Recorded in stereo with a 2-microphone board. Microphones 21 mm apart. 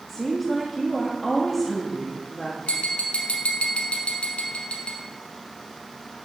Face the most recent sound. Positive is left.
turn(degrees=70)  # may be behind; listen again after turning